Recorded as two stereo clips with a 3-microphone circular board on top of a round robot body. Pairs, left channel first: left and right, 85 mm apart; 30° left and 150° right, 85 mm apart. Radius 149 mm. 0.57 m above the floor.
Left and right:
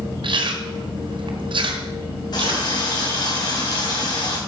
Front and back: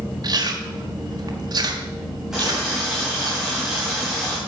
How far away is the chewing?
About 1.3 m.